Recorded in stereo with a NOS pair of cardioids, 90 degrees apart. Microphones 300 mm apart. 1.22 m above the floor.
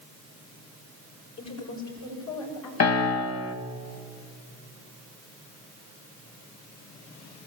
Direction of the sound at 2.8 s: 55° left.